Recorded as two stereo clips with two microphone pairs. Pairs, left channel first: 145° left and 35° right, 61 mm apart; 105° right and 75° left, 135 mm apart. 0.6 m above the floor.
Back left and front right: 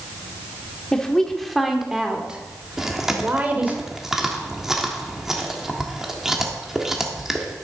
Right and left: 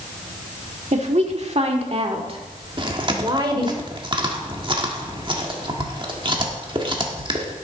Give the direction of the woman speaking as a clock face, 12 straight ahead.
10 o'clock.